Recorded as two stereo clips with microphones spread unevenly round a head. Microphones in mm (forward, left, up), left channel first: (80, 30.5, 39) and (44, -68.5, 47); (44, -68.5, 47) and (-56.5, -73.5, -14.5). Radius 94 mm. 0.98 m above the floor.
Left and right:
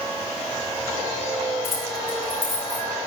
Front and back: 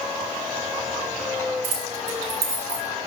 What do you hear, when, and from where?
1.6 s keys jangling: 160° left, 3.5 m; by 2.9 s straight behind, 4 m